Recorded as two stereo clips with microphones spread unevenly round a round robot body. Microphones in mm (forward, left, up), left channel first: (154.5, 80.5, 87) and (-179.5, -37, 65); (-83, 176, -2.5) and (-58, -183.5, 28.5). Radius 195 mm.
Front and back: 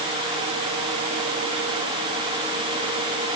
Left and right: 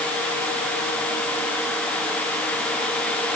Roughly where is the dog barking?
No dog barking in this recording.